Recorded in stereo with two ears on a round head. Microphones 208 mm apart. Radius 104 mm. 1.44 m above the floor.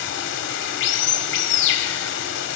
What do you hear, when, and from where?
0.0 s running water: 50° left (ahead or behind), 1.5 m